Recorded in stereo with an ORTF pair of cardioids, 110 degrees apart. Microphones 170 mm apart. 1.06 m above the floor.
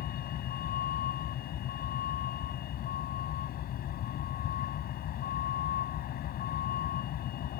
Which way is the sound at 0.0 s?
65° left.